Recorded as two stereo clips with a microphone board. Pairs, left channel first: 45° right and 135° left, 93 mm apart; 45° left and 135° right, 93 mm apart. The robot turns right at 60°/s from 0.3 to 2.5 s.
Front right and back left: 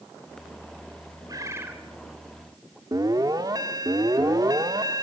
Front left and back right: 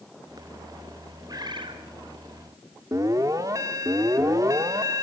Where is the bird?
Straight behind, 2.5 m; by 1.8 s 150° right, 2.5 m.